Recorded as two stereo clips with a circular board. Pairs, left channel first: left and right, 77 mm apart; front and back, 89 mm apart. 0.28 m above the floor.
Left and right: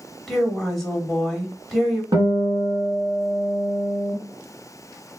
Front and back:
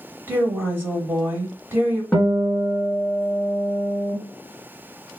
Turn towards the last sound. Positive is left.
turn(degrees=-75)